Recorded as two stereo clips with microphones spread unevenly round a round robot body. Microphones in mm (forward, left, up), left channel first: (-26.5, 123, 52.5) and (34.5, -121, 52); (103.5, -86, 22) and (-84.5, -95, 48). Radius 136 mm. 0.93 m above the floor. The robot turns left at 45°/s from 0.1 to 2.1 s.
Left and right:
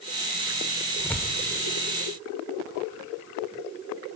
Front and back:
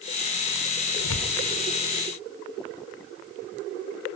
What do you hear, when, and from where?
1.0 s tearing paper: 25° left, 1.8 m; by 1.4 s 10° left, 1.8 m